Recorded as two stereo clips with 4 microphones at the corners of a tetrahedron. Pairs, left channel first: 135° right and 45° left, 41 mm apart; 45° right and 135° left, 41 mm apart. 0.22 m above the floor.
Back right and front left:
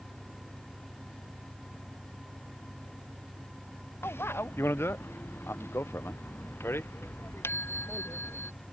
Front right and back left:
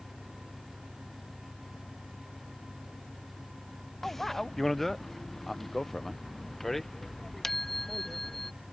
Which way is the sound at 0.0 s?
15° left.